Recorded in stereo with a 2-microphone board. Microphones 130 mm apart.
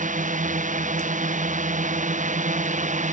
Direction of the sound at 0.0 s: 80° right.